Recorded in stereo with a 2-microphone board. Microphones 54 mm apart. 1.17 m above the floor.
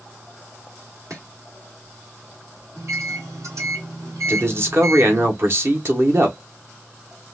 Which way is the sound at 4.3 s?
45° right (ahead or behind).